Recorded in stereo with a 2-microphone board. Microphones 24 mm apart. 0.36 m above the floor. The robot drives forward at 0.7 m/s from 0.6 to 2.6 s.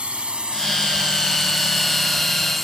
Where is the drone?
50° right (ahead or behind); by 2.6 s 5° left (ahead or behind).